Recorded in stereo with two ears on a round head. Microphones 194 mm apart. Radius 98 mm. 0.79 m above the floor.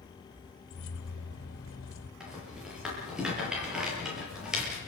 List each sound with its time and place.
0.7 s keys jangling: 70° left (ahead or behind), 2.5 m
2.2 s a rattle: 5° right (ahead or behind), 7.5 m